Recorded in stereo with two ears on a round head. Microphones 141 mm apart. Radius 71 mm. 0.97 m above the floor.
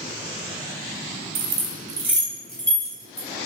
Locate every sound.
1.4 s keys jangling: 70° right (ahead or behind), 0.6 m; by 3.3 s 15° left (ahead or behind), 1.7 m